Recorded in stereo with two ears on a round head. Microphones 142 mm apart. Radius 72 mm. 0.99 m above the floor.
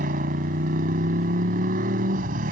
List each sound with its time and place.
0.0 s a motorcycle: 55° right (ahead or behind)